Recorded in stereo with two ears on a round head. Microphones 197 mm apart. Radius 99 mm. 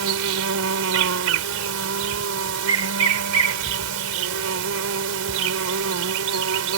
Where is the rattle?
I don't hear a rattle.